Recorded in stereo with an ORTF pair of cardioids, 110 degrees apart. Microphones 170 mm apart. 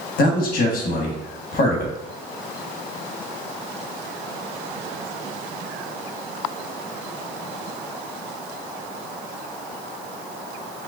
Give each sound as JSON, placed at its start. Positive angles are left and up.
{"t": 0.2, "sound": "a man speaking", "azimuth_deg": 60, "distance_m": 1.2}